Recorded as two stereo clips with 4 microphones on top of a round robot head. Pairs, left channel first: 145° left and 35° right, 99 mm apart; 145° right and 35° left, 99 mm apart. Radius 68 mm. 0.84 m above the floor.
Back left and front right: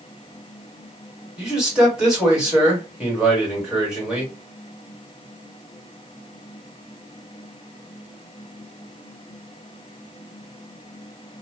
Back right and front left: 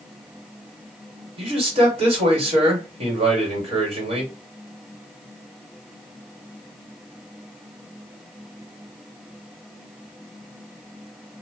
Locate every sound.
1.4 s a man speaking: 45° left, 2 m